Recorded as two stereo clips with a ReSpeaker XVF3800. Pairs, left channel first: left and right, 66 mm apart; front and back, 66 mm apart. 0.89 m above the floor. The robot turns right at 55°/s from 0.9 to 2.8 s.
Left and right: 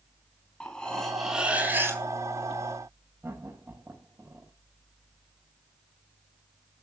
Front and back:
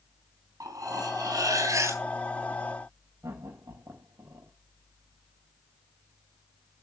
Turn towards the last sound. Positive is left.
turn(degrees=-135)